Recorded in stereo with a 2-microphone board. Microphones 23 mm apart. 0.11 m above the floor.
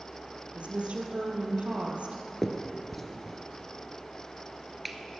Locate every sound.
0.5 s a woman speaking: 55° right (ahead or behind), 2.5 m
2.4 s a finger snap: 5° left (ahead or behind), 1.4 m